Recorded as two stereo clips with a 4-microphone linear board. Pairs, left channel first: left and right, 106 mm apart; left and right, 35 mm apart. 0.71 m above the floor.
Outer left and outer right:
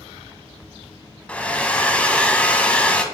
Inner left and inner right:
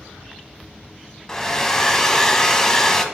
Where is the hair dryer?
10° left (ahead or behind), 0.9 m.